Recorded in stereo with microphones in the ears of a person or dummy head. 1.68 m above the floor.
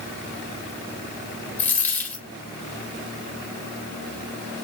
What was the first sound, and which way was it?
A dropped coin, 10° left (ahead or behind).